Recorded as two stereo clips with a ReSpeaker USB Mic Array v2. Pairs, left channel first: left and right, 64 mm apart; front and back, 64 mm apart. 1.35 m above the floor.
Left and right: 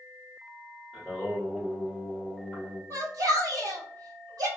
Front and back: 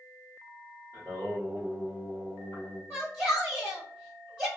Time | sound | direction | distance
0.9 | singing | 155° right | 1.6 m
2.9 | a shout | 115° right | 2.0 m